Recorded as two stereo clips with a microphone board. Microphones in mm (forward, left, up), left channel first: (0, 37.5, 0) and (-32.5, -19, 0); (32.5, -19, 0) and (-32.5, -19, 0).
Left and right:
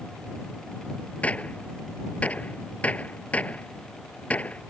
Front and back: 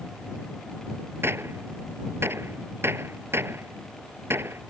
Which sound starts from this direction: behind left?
A gunshot, at 1.2 s.